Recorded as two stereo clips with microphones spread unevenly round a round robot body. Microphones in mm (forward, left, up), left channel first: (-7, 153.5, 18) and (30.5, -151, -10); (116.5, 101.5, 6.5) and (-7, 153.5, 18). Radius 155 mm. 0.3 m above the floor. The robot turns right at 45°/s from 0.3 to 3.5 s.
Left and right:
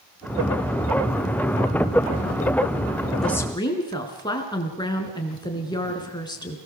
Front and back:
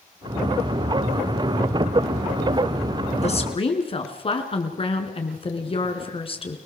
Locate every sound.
3.2 s a woman speaking: 5° left, 5 m; by 6.6 s 20° left, 5 m